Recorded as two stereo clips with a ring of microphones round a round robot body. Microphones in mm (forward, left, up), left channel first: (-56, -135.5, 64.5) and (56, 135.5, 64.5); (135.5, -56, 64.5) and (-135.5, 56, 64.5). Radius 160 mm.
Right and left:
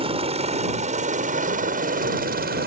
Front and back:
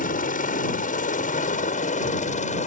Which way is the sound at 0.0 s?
15° left.